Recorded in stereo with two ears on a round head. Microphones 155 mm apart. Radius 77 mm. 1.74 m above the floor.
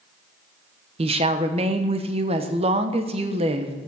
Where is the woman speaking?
35° right (ahead or behind), 1.0 m.